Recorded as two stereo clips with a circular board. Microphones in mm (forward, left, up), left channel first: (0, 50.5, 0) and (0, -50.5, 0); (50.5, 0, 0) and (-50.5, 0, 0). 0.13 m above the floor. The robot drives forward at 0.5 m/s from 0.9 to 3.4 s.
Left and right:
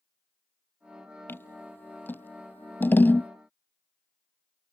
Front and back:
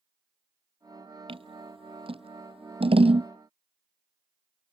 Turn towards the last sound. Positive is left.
turn(degrees=160)